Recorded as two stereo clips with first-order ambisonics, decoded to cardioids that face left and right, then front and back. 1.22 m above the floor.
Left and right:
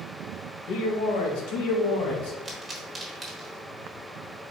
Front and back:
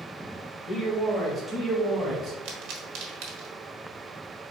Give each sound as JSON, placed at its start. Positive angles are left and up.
{"t": 0.7, "sound": "a man speaking", "azimuth_deg": 70, "distance_m": 1.4}
{"t": 2.5, "sound": "a pop", "azimuth_deg": -170, "distance_m": 1.2}